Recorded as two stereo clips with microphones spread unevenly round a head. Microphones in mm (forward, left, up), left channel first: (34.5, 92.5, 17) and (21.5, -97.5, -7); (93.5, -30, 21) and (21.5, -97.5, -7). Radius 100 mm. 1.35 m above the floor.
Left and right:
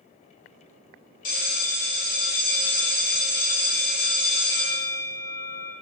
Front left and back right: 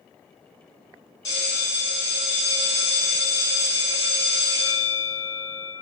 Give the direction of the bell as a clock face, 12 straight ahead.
9 o'clock.